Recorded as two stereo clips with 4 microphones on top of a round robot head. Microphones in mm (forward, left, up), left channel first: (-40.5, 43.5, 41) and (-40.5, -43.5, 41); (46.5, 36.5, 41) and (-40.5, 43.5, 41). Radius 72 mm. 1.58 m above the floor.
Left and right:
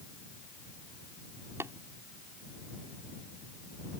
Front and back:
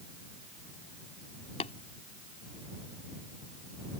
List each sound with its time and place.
1.6 s tapping: 20° right